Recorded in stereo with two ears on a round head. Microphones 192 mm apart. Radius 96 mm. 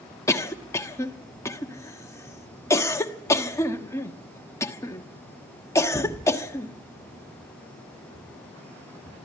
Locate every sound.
0.3 s a cough: 15° left (ahead or behind), 1.3 m